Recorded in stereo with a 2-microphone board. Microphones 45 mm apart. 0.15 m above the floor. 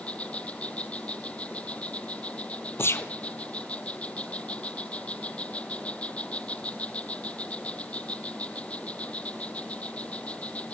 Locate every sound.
0.0 s an insect: 30° left (ahead or behind), 0.9 m
2.8 s a gunshot: 65° left (ahead or behind), 1.2 m